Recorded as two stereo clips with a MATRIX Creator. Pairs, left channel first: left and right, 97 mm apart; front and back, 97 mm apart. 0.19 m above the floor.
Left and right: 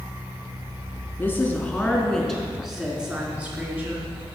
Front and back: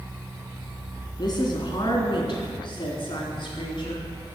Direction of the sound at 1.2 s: 25° left.